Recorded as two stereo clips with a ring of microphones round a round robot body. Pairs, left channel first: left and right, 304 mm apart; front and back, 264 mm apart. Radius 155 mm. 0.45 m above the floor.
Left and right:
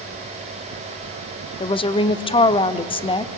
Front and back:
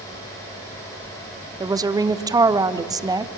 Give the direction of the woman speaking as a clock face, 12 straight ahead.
8 o'clock.